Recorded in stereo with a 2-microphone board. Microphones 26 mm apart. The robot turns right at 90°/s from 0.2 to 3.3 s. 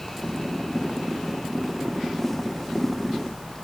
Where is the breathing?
No breathing in this recording.